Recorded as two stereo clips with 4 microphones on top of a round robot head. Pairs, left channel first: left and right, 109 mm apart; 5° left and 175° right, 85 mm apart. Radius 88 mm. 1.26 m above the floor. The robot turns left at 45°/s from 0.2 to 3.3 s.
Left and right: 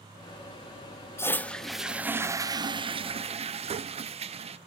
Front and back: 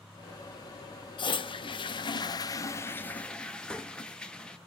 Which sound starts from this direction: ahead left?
A toilet flushing, at 1.2 s.